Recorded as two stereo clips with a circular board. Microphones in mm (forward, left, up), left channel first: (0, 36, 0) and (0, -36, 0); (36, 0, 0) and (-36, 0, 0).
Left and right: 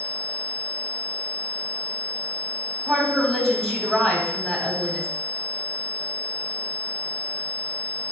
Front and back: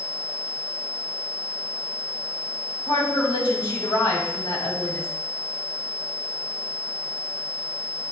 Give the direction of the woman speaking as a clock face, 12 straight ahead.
12 o'clock.